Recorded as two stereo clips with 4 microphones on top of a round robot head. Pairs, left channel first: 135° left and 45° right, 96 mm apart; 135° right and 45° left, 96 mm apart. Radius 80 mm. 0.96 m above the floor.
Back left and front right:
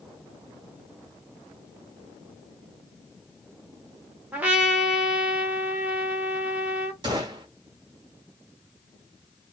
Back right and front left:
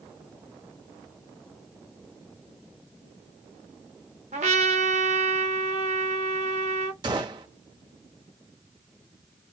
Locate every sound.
4.3 s a trumpet: 30° left, 0.8 m
7.0 s a gunshot: straight ahead, 0.8 m